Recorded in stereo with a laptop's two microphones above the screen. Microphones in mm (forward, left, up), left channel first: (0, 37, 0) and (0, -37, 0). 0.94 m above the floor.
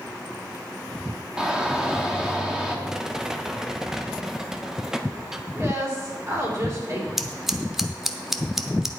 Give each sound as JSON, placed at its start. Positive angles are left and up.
{"t": 1.4, "sound": "a shout", "side_deg": -10, "distance_m": 2.5}
{"t": 2.9, "sound": "a rattle", "side_deg": -5, "distance_m": 0.6}
{"t": 5.5, "sound": "a woman speaking", "side_deg": -45, "distance_m": 3.5}
{"t": 7.2, "sound": "scissors", "side_deg": -5, "distance_m": 0.6}